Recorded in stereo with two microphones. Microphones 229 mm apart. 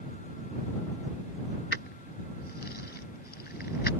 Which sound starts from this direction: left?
Keys jangling, at 1.7 s.